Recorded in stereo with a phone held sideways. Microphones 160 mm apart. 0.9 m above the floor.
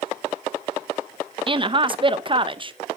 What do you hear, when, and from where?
1.5 s a woman speaking: 35° right (ahead or behind), 0.7 m